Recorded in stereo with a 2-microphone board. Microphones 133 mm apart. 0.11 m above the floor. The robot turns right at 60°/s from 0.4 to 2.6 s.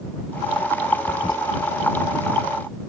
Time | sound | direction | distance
1.1 | a toilet flushing | 45° left (ahead or behind) | ?